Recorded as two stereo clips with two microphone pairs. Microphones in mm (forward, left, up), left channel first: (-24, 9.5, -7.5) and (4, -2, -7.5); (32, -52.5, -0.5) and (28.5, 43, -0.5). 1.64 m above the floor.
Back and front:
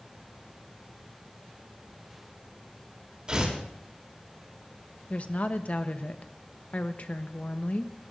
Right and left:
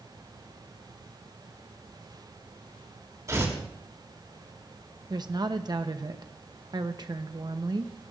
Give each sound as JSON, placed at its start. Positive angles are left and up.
{"t": 3.3, "sound": "tearing paper", "azimuth_deg": 35, "distance_m": 3.0}
{"t": 5.1, "sound": "a woman speaking", "azimuth_deg": 130, "distance_m": 1.0}